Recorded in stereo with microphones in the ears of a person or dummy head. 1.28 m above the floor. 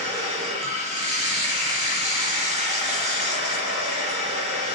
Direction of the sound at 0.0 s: 35° right (ahead or behind).